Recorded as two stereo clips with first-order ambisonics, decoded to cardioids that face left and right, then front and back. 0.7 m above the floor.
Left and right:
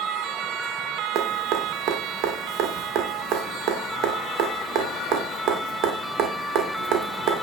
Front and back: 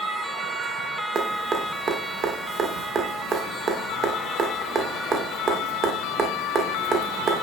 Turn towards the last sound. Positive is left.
turn(degrees=-125)